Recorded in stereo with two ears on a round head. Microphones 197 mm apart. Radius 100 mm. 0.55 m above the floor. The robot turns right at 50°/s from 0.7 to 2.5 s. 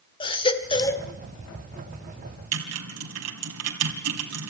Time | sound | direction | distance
0.2 | a baby crying | 25° left (ahead or behind) | 1.3 m
2.5 | typing on a keyboard | 80° right | 3 m